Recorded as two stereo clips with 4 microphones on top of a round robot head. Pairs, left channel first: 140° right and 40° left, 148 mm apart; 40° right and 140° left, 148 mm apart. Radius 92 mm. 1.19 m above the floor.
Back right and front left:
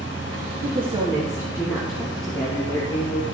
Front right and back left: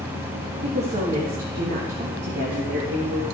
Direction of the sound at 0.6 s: 90° left.